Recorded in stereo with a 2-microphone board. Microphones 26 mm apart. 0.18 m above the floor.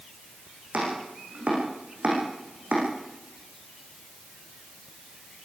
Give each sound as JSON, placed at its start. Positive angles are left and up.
{"t": 0.7, "sound": "chopping", "side_deg": -70, "distance_m": 9.0}